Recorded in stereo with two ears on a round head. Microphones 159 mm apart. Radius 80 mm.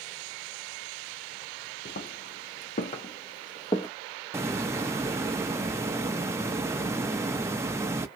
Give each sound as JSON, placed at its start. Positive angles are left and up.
{"t": 1.9, "sound": "footsteps", "side_deg": 50, "distance_m": 1.1}
{"t": 4.3, "sound": "a hiss", "side_deg": -15, "distance_m": 0.5}